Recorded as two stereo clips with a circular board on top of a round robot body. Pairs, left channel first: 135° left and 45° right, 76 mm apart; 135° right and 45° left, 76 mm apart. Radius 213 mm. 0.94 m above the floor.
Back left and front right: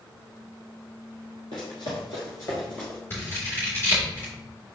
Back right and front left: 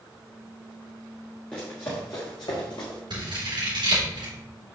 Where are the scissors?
70° left, 3 m.